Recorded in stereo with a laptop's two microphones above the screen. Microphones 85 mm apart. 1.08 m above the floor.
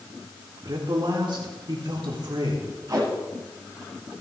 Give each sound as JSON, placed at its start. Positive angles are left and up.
{"t": 0.6, "sound": "a man speaking", "side_deg": -65, "distance_m": 3.0}
{"t": 2.9, "sound": "tape being pulled", "side_deg": -45, "distance_m": 6.0}